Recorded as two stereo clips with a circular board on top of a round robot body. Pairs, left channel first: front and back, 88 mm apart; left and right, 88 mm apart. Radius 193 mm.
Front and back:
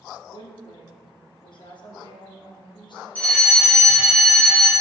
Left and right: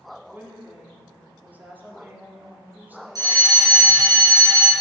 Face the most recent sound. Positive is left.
turn(degrees=-65)